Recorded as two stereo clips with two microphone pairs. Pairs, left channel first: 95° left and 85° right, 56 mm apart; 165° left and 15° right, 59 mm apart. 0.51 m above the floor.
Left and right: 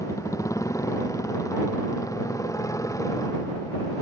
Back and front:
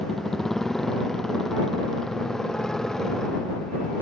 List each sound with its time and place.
0.0 s a motorcycle: 80° left; by 4.0 s 85° left